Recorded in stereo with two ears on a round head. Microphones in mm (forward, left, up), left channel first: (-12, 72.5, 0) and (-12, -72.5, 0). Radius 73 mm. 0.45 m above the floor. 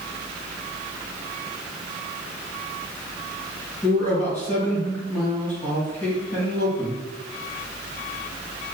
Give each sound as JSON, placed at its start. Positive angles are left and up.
{"t": 3.8, "sound": "a man speaking", "side_deg": 15, "distance_m": 1.9}